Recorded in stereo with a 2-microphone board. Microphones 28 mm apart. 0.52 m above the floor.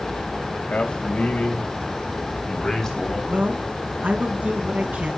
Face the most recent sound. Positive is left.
turn(degrees=-70)  # may be behind; listen again after turning